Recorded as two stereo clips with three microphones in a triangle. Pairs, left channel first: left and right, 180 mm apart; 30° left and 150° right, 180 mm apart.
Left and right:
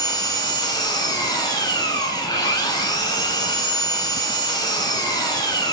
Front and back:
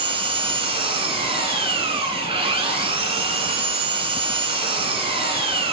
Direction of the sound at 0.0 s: 155° left.